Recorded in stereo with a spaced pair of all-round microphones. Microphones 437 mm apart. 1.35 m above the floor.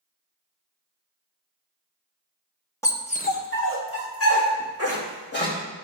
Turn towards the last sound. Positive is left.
turn(degrees=30)  # may be behind; listen again after turning